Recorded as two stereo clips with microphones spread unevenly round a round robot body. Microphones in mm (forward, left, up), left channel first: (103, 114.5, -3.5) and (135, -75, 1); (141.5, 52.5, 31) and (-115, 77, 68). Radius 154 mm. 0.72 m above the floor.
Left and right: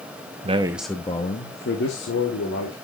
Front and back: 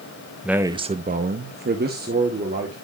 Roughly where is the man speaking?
Right.